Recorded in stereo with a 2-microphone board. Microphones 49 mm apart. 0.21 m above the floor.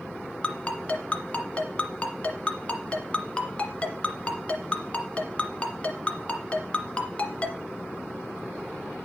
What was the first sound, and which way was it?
A ringtone, 25° left (ahead or behind).